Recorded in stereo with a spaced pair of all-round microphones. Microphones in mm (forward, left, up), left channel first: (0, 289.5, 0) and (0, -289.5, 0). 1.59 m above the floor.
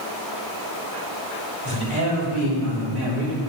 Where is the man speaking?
80° right, 4 m.